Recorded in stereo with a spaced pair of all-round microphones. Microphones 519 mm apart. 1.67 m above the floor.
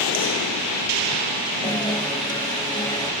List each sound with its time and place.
1.6 s a guitar: 10° left (ahead or behind)